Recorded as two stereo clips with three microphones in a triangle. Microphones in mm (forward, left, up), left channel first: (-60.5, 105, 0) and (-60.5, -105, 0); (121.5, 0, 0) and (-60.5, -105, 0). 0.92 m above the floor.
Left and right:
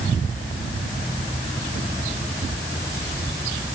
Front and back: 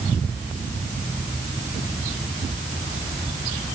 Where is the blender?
No blender in this recording.